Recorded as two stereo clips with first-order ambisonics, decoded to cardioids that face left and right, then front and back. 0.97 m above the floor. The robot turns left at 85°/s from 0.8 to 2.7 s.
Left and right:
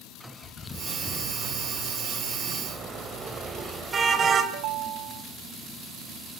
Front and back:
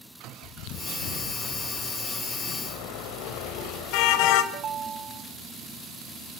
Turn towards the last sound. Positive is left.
turn(degrees=-120)